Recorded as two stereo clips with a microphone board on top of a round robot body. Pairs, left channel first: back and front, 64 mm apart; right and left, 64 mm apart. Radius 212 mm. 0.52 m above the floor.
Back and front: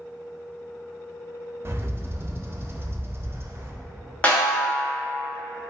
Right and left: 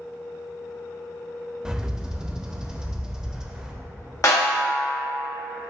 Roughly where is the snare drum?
Behind right.